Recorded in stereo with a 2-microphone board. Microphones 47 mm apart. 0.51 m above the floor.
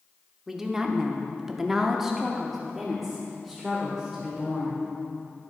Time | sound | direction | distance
0.5 | a woman speaking | 10° right (ahead or behind) | 1.0 m